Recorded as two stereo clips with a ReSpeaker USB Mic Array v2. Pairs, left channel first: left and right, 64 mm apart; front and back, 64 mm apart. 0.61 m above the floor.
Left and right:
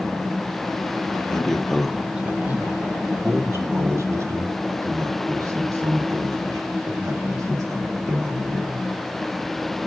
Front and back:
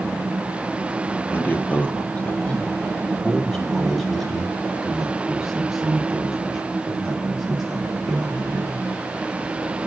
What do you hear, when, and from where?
1.3 s a man speaking: 20° left, 1.3 m; by 8.9 s 100° right, 4.5 m